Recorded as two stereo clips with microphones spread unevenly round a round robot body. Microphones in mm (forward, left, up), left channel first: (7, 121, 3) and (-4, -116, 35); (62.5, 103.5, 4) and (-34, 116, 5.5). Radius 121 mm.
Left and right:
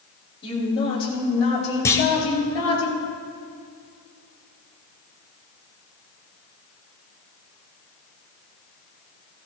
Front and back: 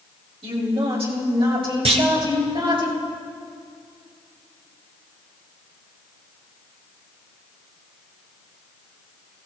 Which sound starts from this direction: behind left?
A woman speaking, at 0.4 s.